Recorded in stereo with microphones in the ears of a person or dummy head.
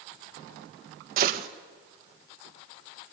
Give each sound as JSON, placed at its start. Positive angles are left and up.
{"t": 1.2, "sound": "a gunshot", "side_deg": -55, "distance_m": 1.7}